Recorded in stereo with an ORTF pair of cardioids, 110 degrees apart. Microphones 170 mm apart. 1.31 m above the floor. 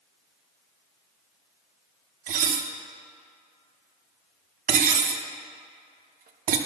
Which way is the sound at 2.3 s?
55° right.